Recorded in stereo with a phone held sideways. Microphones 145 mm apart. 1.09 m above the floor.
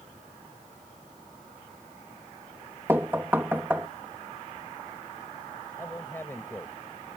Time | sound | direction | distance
2.9 | knocking | 15° right (ahead or behind) | ?
5.8 | a man speaking | 15° left (ahead or behind) | ?